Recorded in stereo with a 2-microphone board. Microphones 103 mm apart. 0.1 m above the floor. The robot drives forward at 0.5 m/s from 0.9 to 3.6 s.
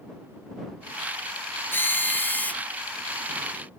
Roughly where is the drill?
Left.